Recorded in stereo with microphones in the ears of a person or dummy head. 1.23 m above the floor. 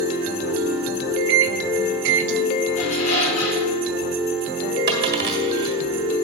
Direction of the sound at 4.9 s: 60° right (ahead or behind).